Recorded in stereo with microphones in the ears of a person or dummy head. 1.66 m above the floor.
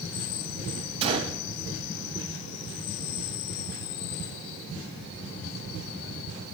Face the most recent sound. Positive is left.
turn(degrees=-30)  # may be behind; listen again after turning